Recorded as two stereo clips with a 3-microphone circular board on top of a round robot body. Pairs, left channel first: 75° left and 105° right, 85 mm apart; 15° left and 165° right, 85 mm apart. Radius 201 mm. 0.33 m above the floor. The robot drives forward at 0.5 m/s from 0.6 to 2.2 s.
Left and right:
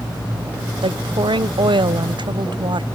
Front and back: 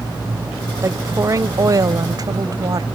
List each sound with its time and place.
0.8 s a woman speaking: 110° right; by 2.9 s 125° right